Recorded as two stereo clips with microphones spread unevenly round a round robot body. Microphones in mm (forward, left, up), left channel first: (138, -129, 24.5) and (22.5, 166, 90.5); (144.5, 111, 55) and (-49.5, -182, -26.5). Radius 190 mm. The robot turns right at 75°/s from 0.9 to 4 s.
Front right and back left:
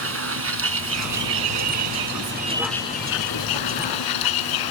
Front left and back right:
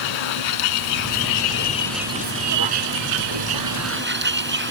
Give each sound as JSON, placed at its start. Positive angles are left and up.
{"t": 0.0, "sound": "a vehicle", "azimuth_deg": 65}